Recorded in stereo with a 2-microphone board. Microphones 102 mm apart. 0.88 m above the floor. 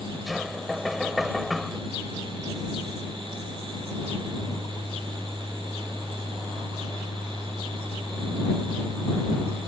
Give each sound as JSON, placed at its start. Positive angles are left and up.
{"t": 0.3, "sound": "knocking", "side_deg": 0}